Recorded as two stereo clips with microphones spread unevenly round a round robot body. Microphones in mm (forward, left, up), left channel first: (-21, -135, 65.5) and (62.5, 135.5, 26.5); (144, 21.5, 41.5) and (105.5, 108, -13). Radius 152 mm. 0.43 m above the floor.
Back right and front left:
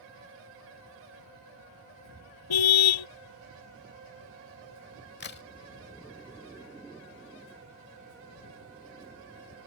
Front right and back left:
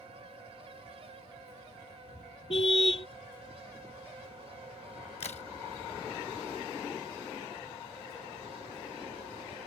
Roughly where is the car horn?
Behind right.